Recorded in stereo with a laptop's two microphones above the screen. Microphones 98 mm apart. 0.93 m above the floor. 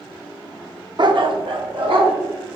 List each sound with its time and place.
1.0 s a dog barking: 50° right (ahead or behind), 0.6 m; by 2.1 s 65° right (ahead or behind), 1.6 m